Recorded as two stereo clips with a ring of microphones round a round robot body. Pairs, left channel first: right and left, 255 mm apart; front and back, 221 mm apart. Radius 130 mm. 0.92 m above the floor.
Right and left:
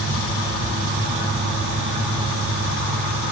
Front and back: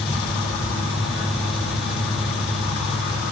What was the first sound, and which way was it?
Only background noise.